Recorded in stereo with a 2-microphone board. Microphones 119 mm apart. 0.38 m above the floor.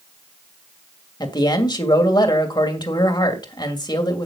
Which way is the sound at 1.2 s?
40° left (ahead or behind).